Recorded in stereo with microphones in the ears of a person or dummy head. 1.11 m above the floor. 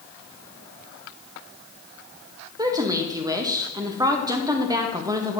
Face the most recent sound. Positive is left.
turn(degrees=-15)  # may be behind; listen again after turning